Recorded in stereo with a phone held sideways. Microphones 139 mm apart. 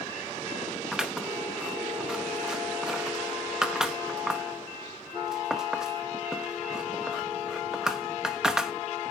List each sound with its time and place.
0.9 s scissors: 5° right (ahead or behind), 0.8 m